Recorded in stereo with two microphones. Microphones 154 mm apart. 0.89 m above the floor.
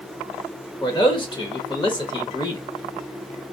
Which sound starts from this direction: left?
A man speaking, at 0.8 s.